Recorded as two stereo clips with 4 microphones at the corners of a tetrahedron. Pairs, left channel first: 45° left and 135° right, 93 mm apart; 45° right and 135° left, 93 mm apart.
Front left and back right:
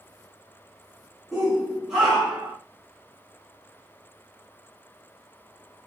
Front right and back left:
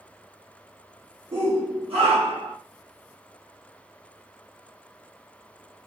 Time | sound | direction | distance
1.3 | a shout | 135° left | 1.4 m